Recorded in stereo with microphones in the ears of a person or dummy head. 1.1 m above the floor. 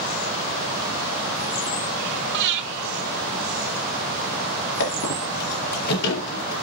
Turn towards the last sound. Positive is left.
turn(degrees=75)  # may be behind; listen again after turning